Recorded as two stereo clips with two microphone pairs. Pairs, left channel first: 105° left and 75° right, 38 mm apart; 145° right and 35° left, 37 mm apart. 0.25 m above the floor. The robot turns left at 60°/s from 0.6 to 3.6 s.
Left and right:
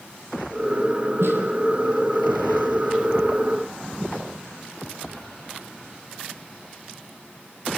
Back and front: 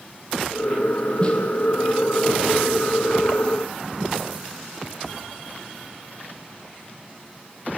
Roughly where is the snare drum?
Right.